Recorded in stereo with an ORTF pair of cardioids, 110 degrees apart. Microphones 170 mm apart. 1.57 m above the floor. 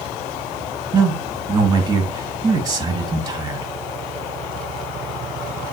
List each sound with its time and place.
0.9 s a man speaking: 20° right, 2.5 m